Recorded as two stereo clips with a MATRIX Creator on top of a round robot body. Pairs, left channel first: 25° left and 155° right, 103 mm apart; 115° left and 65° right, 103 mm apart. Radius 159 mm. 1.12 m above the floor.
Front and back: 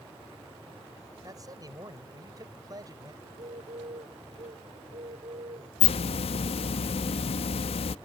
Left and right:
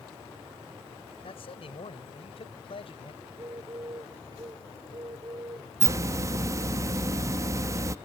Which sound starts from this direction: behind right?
A bird, at 3.2 s.